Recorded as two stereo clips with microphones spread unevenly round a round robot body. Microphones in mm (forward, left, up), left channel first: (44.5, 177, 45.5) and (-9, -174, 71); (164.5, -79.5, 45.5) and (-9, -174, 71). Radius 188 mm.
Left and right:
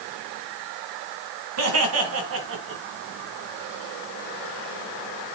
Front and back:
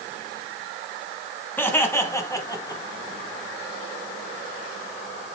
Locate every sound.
1.6 s laughter: 50° right, 4 m; by 2.8 s 40° right, 3.5 m